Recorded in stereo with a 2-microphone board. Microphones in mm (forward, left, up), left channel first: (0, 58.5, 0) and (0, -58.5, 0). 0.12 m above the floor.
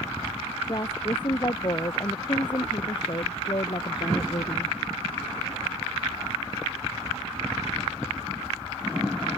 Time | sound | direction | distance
0.7 | a woman speaking | 40° left (ahead or behind) | ?